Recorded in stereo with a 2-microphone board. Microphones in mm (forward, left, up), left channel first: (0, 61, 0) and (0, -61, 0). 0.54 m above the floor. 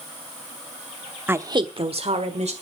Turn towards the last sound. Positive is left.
turn(degrees=-65)  # may be behind; listen again after turning